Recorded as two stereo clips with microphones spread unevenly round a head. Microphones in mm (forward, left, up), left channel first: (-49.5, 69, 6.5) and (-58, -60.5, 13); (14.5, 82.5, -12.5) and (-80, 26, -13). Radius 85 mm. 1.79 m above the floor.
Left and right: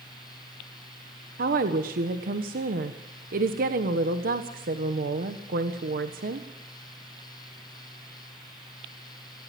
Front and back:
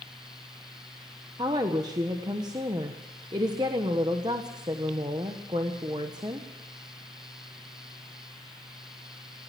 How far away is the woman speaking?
About 1.2 m.